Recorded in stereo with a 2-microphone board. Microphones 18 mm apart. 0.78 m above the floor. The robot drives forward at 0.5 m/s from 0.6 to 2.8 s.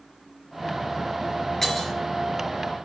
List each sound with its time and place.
1.6 s breaking glass: 30° left (ahead or behind), 3.5 m